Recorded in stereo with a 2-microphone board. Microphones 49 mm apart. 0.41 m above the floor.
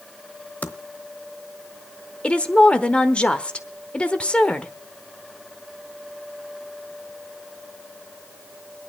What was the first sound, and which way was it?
Typing on a keyboard, 30° left (ahead or behind).